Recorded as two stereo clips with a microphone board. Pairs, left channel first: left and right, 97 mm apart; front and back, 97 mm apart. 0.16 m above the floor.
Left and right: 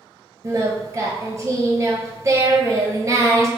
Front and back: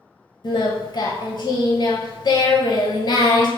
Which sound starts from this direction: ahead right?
Singing, at 0.4 s.